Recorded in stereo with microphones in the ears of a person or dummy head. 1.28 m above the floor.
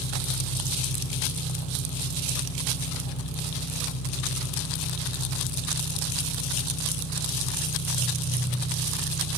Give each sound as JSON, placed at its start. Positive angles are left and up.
{"t": 0.0, "sound": "an engine running", "side_deg": 70, "distance_m": 6.5}